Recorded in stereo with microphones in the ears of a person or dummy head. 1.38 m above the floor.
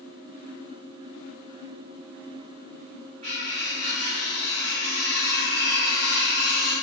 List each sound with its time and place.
3.2 s cutlery clinking: 45° right (ahead or behind), 1.9 m